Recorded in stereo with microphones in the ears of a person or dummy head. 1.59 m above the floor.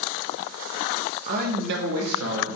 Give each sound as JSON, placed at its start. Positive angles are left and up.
{"t": 1.3, "sound": "a man speaking", "side_deg": -40, "distance_m": 0.6}